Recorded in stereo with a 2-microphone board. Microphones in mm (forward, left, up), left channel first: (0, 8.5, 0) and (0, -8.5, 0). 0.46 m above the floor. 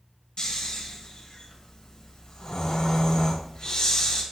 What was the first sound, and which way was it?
Snoring, 70° left (ahead or behind).